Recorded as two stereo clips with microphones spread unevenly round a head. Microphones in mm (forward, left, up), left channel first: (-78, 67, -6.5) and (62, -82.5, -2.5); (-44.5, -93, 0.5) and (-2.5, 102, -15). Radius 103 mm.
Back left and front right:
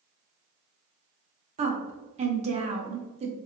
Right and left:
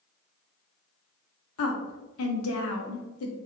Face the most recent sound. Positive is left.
turn(degrees=-105)